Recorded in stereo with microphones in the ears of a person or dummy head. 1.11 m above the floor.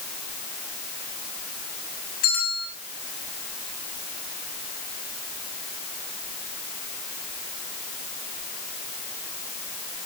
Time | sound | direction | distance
2.2 | a bell | 45° left (ahead or behind) | 9 m